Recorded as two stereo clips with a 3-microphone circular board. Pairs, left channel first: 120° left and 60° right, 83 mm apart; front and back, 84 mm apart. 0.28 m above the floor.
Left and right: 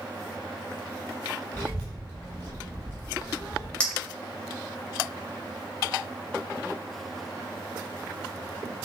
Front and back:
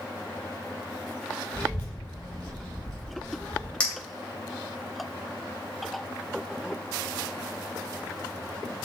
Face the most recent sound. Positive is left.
turn(degrees=55)